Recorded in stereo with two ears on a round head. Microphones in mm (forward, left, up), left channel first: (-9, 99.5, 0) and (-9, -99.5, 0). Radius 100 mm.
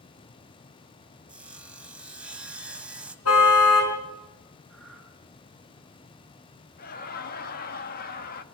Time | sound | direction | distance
1.3 | sawing | 5° right (ahead or behind) | 1.4 m
3.2 | a car horn | 75° left (ahead or behind) | 5 m
4.7 | breathing | centre (ahead or behind) | 6.5 m
6.8 | laughter | 40° left (ahead or behind) | 1.4 m